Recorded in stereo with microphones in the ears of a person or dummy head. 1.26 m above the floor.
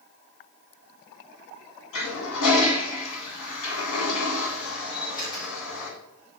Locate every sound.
1.9 s a toilet flushing: 70° left (ahead or behind), 2.0 m
4.9 s a camera shutter: 25° left (ahead or behind), 3 m